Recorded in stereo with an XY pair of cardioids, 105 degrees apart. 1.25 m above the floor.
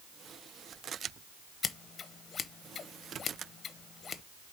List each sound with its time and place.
1.6 s scissors: 40° left, 0.8 m